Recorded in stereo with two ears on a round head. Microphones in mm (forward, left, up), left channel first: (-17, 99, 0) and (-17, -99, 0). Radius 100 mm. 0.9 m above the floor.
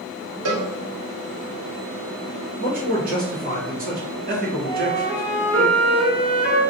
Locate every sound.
0.5 s a cowbell: 80° right, 1.0 m
2.6 s a man speaking: 40° right (ahead or behind), 1.1 m
4.6 s a flute: 70° right (ahead or behind), 1.2 m